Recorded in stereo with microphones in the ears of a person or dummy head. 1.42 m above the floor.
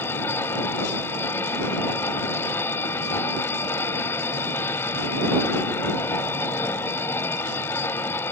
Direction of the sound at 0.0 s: 15° left (ahead or behind).